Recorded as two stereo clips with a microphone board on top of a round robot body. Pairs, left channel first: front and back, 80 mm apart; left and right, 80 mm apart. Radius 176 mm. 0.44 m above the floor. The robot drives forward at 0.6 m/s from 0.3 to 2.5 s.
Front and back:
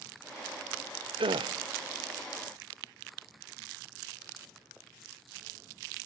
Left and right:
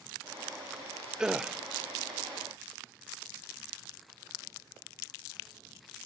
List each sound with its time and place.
1.2 s a gasp: 170° right, 0.7 m; by 1.6 s 175° right, 0.9 m